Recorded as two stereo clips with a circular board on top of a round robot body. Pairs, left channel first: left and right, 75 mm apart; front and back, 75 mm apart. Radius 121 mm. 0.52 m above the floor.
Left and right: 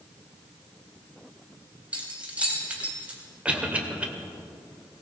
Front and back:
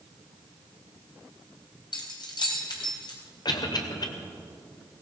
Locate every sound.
1.9 s keys jangling: 15° right, 3 m
3.5 s a cough: 15° right, 2.5 m